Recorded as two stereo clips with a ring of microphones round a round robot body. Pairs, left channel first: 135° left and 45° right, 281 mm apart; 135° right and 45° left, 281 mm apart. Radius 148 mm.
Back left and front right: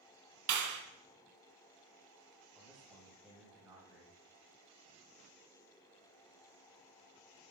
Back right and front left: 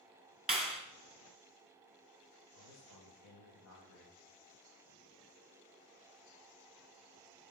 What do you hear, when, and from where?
0.5 s a clap: 45° right, 2 m
2.5 s a man speaking: 135° right, 2 m